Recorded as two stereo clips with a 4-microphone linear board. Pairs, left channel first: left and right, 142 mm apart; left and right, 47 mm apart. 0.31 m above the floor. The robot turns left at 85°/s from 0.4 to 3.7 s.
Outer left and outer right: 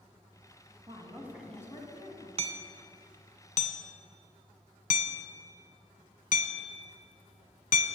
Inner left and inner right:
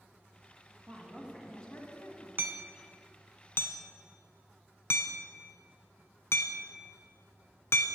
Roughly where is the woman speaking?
Behind right.